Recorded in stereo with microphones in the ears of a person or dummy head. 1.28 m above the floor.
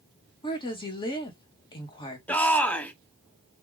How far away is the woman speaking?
About 1.1 m.